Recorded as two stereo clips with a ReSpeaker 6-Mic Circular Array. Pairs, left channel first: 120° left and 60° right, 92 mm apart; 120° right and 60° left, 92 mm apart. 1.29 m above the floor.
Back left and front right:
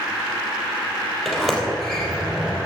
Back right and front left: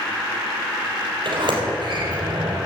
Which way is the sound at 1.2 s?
35° left.